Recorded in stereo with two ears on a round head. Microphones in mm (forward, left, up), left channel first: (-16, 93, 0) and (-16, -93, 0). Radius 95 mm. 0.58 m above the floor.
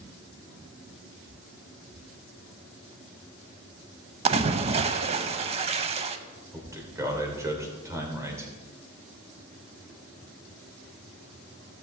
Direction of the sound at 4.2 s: 30° right (ahead or behind).